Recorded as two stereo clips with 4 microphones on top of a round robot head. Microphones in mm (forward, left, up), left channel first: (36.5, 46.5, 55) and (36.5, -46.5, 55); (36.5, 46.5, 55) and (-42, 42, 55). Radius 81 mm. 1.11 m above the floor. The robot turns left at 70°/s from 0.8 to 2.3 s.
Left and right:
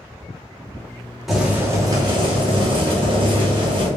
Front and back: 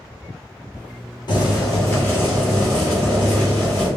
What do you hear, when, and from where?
1.3 s boiling: 5° right, 1.2 m; by 3.9 s 75° right, 1.2 m